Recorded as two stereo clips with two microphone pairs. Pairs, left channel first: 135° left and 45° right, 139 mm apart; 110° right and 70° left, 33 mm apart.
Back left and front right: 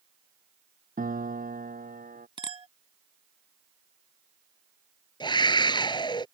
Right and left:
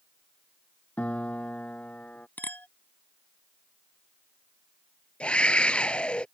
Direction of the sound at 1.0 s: 60° right.